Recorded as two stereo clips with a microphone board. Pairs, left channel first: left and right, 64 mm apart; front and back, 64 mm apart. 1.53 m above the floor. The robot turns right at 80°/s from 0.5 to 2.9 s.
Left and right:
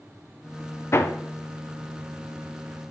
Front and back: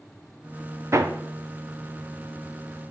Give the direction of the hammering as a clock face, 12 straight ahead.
7 o'clock.